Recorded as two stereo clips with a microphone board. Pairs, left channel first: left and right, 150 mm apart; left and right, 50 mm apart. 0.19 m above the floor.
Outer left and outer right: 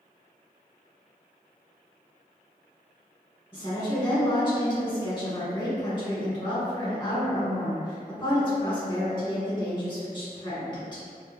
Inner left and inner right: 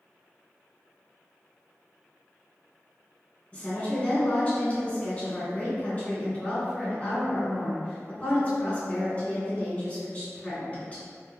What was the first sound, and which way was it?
A woman speaking, 30° left (ahead or behind).